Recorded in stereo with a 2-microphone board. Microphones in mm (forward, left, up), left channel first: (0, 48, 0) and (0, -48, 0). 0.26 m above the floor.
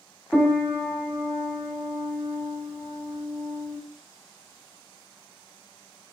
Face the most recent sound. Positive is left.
turn(degrees=10)  # may be behind; listen again after turning